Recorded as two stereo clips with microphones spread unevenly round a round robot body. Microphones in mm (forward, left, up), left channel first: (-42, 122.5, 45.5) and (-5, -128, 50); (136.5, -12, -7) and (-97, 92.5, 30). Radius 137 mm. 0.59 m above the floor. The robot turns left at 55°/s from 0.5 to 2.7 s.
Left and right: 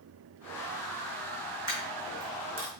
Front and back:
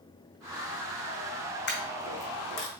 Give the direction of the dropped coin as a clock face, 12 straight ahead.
11 o'clock.